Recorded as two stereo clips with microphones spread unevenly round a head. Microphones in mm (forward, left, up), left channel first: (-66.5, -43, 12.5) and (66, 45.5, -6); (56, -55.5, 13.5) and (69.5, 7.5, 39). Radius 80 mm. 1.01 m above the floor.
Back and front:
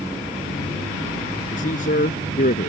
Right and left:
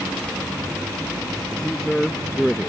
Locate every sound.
1.5 s a man speaking: 170° left